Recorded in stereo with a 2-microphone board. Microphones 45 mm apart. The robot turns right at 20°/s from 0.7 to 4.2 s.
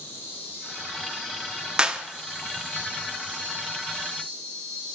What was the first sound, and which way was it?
An insect, 95° left.